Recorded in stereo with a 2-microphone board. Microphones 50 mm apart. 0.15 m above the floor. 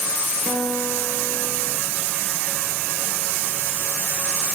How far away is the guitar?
About 1.2 m.